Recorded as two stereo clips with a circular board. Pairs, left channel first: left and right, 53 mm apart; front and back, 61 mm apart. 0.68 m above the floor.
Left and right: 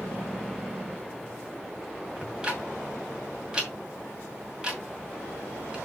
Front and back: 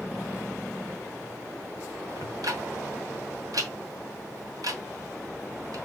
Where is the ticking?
165° right, 2 m.